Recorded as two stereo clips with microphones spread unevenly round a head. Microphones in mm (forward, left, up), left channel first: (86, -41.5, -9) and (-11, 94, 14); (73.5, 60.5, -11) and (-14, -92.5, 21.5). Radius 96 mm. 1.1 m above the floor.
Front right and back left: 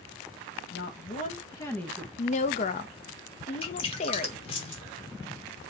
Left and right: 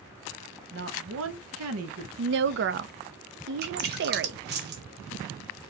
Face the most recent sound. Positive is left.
turn(degrees=-120)